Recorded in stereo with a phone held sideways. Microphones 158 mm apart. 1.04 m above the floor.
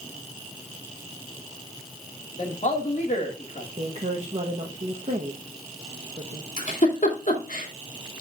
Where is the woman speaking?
45° right (ahead or behind), 1.0 m.